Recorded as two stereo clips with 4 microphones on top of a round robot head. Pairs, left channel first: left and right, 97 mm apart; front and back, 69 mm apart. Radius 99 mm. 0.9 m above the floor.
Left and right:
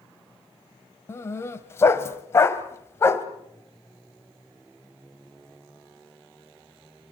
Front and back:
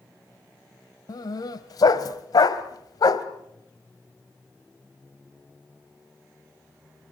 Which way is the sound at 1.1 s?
30° left.